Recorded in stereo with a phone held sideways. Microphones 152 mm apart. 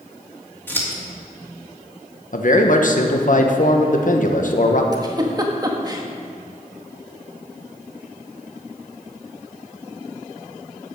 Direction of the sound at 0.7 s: 15° left (ahead or behind).